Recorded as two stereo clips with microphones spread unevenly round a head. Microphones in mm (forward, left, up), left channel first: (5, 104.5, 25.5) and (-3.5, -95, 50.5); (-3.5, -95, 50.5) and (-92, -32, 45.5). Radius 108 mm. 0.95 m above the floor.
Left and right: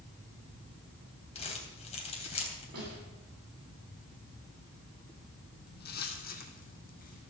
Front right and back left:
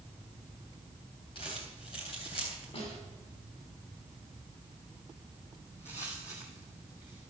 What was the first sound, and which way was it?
Crumpling, 25° left.